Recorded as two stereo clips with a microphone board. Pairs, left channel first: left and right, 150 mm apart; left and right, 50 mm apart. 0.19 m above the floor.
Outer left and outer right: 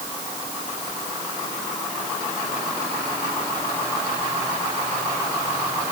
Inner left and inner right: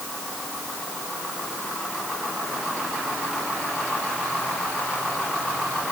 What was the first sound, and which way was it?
Only background noise.